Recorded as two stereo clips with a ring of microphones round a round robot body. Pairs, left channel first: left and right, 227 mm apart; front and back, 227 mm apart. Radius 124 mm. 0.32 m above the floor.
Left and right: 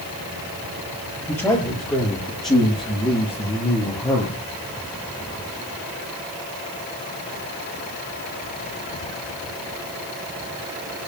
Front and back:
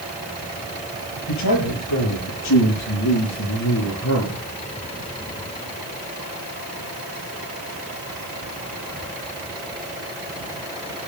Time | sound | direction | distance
1.3 | a man speaking | 10° left | 7.5 m